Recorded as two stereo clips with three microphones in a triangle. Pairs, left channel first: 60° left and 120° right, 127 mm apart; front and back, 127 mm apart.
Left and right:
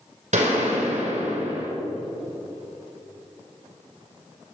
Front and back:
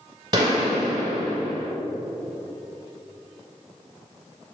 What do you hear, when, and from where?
0.3 s a gunshot: 125° right, 3 m